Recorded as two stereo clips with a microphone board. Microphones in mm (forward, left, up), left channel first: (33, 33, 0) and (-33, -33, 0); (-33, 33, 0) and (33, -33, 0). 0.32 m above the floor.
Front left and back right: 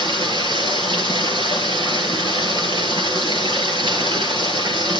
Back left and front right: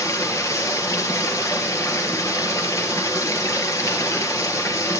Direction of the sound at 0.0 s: 165° right.